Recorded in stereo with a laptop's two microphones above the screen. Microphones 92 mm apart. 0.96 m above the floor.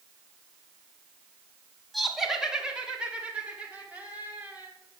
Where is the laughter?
Centre (ahead or behind), 1.6 m; by 4.7 s 20° right (ahead or behind), 3 m.